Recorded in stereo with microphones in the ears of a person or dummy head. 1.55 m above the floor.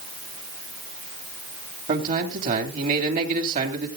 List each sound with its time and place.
1.9 s a man speaking: 45° right (ahead or behind), 3 m